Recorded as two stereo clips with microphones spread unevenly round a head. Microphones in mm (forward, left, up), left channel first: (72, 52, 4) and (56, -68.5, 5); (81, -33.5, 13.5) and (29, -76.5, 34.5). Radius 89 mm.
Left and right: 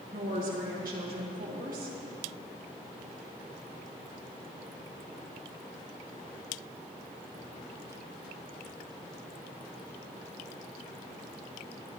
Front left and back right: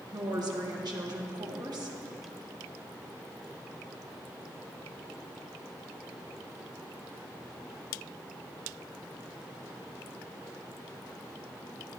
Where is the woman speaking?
125° right, 1.9 m.